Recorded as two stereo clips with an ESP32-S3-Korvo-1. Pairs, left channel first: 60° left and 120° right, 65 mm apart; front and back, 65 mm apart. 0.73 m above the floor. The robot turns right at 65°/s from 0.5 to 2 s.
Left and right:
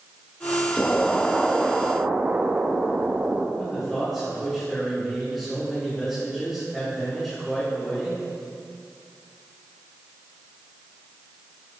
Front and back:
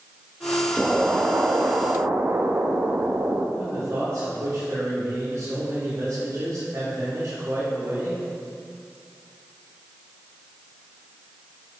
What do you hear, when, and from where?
0.8 s an explosion: 105° left, 0.7 m; by 3.5 s 175° right, 0.7 m
3.6 s a man speaking: 145° left, 2.5 m